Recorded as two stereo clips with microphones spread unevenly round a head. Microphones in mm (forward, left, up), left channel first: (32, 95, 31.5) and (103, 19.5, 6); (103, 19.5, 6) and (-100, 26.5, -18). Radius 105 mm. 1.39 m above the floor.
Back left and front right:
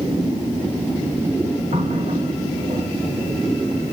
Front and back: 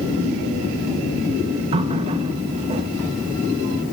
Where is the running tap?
115° right, 1.2 m.